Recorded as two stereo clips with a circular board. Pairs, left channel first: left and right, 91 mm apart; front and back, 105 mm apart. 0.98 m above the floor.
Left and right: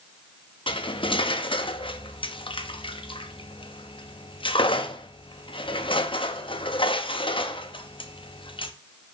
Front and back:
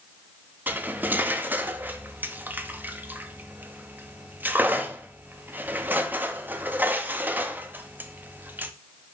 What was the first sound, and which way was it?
Cutlery clinking, 105° left.